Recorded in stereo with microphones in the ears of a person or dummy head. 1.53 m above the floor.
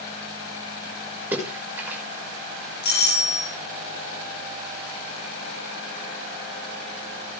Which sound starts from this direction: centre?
A splash, at 1.3 s.